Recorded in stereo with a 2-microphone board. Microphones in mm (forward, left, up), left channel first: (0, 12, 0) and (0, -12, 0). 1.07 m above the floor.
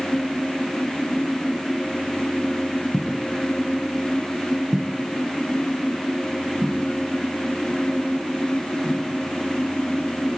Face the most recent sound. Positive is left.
turn(degrees=-55)  # may be behind; listen again after turning